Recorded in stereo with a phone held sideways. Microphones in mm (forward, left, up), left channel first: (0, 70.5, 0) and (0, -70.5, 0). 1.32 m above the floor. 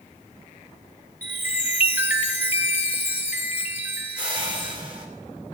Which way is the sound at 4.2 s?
35° right (ahead or behind).